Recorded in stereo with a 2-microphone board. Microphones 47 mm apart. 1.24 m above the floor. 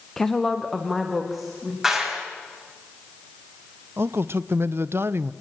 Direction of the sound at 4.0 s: 60° right (ahead or behind).